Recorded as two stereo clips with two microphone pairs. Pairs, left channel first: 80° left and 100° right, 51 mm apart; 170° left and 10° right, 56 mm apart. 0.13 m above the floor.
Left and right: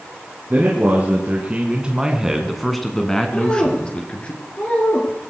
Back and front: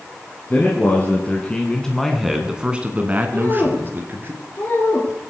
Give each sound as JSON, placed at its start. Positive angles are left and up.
{"t": 0.5, "sound": "a man speaking", "azimuth_deg": -140, "distance_m": 3.0}
{"t": 3.3, "sound": "a woman speaking", "azimuth_deg": 135, "distance_m": 3.0}